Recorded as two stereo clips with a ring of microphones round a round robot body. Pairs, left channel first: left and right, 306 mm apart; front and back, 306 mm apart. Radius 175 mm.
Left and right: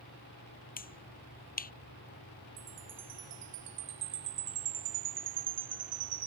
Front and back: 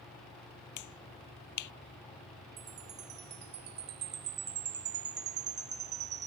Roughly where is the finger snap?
Ahead left.